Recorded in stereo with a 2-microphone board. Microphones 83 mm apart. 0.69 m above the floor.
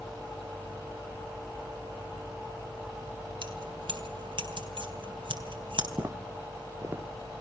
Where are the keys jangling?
80° right, 3.5 m.